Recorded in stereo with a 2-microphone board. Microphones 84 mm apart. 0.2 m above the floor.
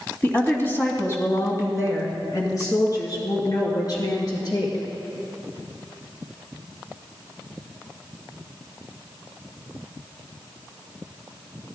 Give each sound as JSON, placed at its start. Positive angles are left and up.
{"t": 0.2, "sound": "a woman speaking", "side_deg": 20, "distance_m": 1.5}